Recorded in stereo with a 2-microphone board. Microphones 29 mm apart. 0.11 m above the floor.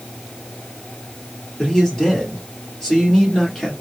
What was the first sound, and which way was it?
A man speaking, 15° left (ahead or behind).